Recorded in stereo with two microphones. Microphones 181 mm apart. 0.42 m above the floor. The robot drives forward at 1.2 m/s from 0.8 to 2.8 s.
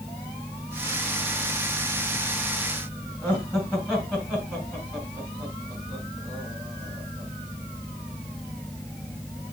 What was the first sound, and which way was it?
Laughter, 5° right (ahead or behind).